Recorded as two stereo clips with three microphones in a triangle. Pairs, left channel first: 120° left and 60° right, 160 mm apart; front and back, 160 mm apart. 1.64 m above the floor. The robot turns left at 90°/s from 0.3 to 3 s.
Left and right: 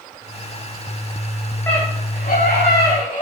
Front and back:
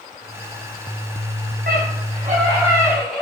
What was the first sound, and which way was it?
A scream, 165° right.